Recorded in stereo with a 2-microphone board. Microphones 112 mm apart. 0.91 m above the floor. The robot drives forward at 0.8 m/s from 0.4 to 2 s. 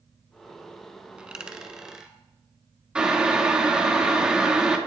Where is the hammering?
No hammering in this recording.